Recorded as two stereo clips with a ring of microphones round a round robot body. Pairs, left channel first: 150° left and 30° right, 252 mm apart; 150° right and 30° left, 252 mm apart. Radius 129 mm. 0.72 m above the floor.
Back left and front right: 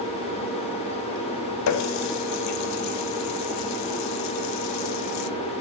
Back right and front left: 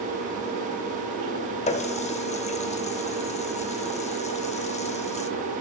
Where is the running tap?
145° left, 0.9 m.